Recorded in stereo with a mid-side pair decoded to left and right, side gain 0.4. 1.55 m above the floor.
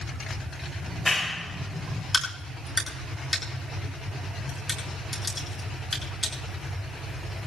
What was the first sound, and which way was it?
A clap, 20° left.